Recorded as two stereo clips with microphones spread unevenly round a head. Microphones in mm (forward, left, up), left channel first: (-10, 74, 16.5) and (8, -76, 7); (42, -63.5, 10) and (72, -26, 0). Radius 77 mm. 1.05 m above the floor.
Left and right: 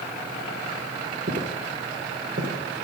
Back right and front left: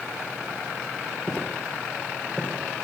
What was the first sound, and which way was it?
Footsteps, 65° right.